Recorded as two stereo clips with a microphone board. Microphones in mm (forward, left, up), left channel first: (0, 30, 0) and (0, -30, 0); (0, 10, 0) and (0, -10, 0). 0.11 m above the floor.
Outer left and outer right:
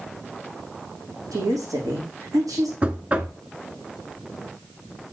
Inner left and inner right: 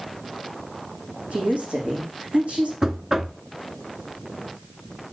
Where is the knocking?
20° right (ahead or behind), 0.8 m.